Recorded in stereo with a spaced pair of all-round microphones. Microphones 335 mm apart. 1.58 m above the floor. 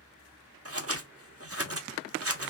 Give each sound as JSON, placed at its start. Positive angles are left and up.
{"t": 0.7, "sound": "scissors", "side_deg": -45, "distance_m": 0.9}